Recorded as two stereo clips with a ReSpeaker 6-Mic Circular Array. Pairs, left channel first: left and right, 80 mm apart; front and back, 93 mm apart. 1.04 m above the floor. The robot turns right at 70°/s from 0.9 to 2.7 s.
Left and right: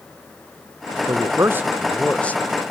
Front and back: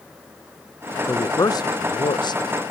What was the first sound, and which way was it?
A man speaking, 65° right.